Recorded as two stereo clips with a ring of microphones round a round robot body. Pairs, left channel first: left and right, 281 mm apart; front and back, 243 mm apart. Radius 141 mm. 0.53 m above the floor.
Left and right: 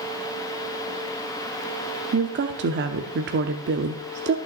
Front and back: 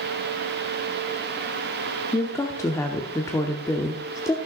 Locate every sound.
2.1 s a woman speaking: 70° right, 0.8 m